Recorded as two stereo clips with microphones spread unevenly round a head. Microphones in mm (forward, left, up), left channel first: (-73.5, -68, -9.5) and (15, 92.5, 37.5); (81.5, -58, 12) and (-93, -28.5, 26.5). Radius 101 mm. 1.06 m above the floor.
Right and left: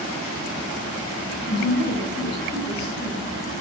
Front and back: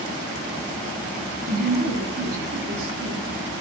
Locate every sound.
1.5 s a woman speaking: 155° right, 7.5 m; by 3.2 s 160° right, 6.5 m